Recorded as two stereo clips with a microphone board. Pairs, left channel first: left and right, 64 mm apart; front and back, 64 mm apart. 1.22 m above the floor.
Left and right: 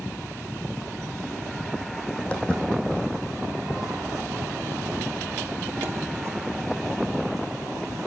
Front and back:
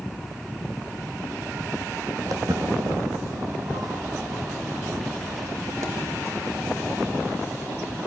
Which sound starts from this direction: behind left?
Footsteps, at 2.3 s.